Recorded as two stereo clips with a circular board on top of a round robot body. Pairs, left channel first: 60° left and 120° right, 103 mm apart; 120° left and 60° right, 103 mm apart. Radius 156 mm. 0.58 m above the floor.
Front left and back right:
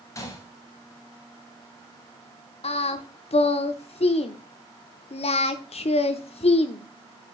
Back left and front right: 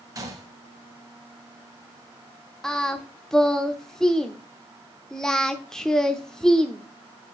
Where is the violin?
I don't hear a violin.